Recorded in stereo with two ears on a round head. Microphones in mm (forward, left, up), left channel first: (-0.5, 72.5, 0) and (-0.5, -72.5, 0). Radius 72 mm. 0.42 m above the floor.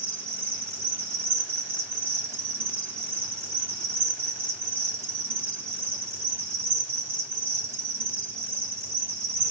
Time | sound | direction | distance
0.0 | an insect | 15° right (ahead or behind) | 3.5 m